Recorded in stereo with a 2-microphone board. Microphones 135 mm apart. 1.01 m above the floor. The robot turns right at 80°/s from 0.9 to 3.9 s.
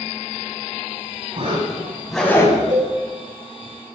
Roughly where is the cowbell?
Right.